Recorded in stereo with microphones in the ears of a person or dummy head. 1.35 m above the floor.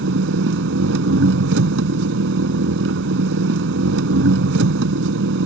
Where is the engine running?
75° right (ahead or behind).